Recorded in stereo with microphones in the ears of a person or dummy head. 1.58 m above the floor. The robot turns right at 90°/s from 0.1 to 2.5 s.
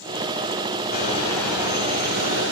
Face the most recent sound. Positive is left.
turn(degrees=-85)